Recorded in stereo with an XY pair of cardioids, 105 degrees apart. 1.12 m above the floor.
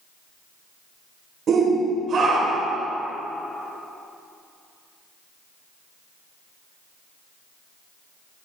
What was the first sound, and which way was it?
A shout, 55° right.